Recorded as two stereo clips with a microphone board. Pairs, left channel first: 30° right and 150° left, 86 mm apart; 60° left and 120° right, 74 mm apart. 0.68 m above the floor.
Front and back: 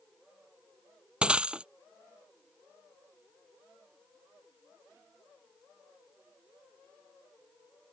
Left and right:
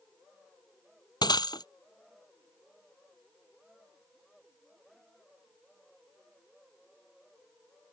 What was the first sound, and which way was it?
Breaking glass, 70° left.